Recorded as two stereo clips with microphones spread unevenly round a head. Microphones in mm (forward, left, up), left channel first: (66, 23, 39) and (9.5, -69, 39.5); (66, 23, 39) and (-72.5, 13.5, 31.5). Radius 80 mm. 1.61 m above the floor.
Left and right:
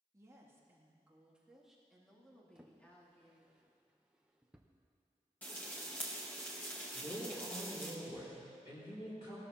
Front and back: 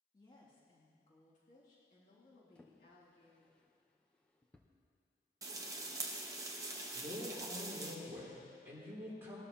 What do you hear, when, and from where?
0.1 s a woman speaking: 60° right, 2.5 m; by 3.5 s 10° right, 3.5 m
2.5 s a drawer: 55° right, 0.7 m
5.4 s frying: 130° left, 0.9 m
6.9 s a man speaking: 110° left, 4 m